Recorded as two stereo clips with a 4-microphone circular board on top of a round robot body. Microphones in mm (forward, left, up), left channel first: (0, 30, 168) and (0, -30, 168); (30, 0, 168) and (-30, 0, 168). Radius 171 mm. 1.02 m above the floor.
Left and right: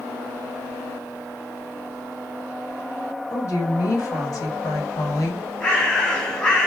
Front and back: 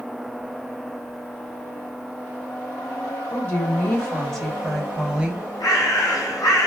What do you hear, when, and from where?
3.3 s a woman speaking: 60° left, 2.5 m; by 5.5 s 115° left, 1.4 m
5.6 s a bird: 20° left, 1.7 m